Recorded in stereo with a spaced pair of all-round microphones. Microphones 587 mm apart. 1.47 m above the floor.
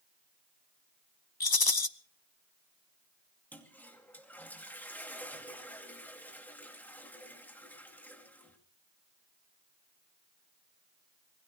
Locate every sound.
1.4 s a rattle: 35° left (ahead or behind), 0.8 m
3.5 s a toilet flushing: 5° left (ahead or behind), 2.5 m